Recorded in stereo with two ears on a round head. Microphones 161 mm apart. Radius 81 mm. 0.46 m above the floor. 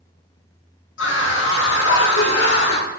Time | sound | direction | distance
1.0 | a scream | 80° left | 5 m